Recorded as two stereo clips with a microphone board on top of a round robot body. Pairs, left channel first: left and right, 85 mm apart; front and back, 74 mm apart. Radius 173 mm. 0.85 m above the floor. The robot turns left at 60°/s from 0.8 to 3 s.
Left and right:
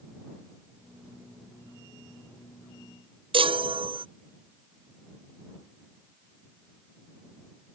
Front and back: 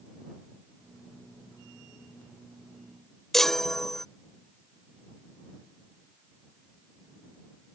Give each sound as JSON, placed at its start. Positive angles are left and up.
{"t": 3.3, "sound": "a chime", "azimuth_deg": -85}